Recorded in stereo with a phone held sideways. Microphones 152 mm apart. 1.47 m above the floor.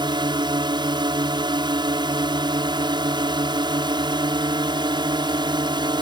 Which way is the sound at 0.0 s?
30° right (ahead or behind).